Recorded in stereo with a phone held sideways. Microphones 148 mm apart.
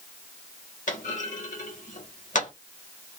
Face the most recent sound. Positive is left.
turn(degrees=65)  # may be behind; listen again after turning